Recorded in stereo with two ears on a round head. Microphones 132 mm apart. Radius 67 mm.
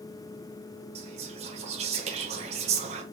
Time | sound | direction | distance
0.9 | whispering | 40° right (ahead or behind) | 1.0 m